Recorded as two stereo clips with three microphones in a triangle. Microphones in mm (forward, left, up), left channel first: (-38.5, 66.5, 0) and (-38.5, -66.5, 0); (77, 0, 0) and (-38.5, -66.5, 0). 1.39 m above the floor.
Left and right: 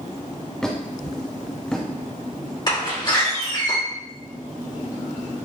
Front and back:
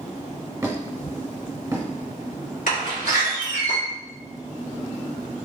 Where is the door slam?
35° left, 2 m.